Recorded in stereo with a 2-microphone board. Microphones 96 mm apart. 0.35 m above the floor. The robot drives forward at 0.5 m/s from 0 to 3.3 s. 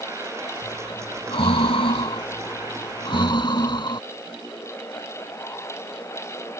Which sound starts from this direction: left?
Breathing, at 0.6 s.